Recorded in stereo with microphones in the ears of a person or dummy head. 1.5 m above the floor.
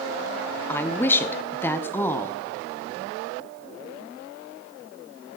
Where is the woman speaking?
15° left (ahead or behind), 0.6 m.